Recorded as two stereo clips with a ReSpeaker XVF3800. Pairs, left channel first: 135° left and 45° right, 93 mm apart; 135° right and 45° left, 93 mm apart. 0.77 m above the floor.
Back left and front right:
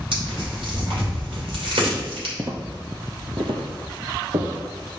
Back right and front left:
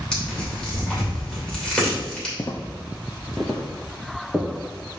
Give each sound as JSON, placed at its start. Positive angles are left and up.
{"t": 0.1, "sound": "tearing paper", "azimuth_deg": -55, "distance_m": 2.5}
{"t": 2.4, "sound": "footsteps", "azimuth_deg": -90, "distance_m": 0.9}